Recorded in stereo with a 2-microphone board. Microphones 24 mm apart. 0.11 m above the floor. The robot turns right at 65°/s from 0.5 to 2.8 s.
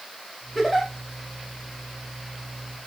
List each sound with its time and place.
0.6 s a giggle: 5° left (ahead or behind), 5 m; by 0.9 s 15° right (ahead or behind), 5 m